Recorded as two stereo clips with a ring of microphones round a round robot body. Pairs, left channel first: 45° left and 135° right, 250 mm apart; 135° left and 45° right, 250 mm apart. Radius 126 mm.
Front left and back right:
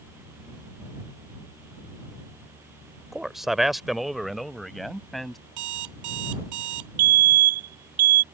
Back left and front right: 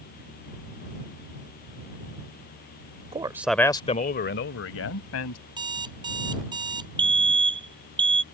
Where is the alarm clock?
120° right.